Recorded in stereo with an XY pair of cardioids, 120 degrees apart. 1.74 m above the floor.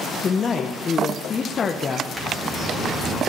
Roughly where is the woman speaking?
Ahead left.